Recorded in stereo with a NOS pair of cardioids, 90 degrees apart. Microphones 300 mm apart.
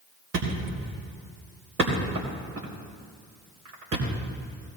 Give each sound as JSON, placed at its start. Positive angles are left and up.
{"t": 0.3, "sound": "a thud", "azimuth_deg": -50, "distance_m": 4.0}